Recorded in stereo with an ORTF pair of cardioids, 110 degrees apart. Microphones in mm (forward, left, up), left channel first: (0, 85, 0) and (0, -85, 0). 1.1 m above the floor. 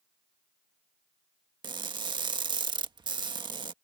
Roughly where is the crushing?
Ahead right.